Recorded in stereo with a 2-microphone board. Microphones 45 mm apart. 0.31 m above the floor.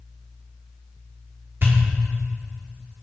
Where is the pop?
50° right (ahead or behind), 6 m.